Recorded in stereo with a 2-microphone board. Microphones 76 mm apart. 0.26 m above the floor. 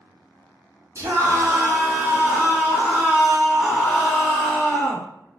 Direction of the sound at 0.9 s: 40° right (ahead or behind).